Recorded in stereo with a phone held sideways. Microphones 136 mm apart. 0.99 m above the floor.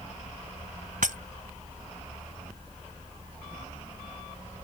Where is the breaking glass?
80° right.